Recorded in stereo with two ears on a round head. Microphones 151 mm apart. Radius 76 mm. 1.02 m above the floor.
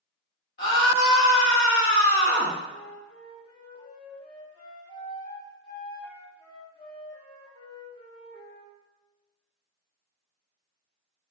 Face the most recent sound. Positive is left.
turn(degrees=35)  # may be behind; listen again after turning